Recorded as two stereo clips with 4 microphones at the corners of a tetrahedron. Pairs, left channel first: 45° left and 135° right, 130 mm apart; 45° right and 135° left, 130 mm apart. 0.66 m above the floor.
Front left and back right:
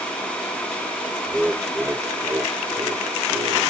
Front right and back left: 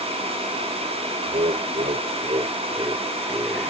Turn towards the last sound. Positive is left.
turn(degrees=-145)